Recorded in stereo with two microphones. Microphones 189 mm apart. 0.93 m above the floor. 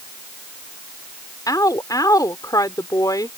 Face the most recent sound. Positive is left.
turn(degrees=20)  # may be behind; listen again after turning